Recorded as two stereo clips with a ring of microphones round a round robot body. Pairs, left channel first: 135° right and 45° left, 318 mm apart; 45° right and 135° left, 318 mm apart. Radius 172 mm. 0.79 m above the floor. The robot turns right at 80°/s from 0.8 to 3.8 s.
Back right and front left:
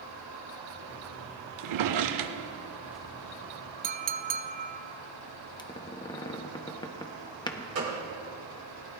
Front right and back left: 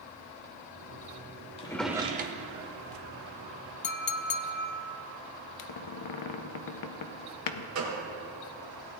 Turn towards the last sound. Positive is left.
turn(degrees=95)